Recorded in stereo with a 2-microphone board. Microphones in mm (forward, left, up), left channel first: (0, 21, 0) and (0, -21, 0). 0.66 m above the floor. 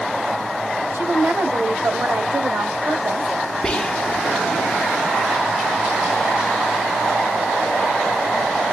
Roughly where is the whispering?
Centre.